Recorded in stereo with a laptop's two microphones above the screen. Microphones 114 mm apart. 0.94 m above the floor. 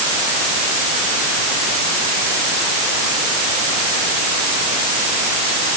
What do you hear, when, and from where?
Only background noise.